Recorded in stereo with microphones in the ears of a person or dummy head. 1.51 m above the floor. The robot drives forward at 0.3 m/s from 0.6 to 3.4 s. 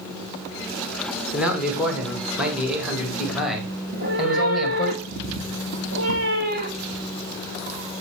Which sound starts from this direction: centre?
A man speaking, at 1.3 s.